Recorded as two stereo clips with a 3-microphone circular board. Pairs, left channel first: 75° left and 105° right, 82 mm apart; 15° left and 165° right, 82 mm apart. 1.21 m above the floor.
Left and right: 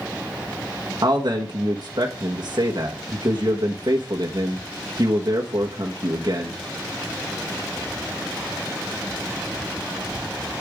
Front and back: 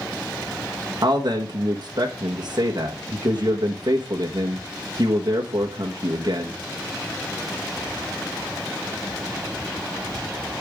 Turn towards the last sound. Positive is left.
turn(degrees=-135)